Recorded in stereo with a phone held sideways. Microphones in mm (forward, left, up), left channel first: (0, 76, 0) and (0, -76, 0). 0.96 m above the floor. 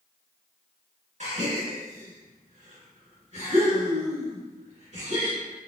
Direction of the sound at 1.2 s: 55° right (ahead or behind).